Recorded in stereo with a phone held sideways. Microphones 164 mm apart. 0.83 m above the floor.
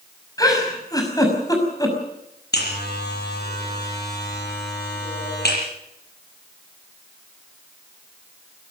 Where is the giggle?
20° left (ahead or behind), 6 m.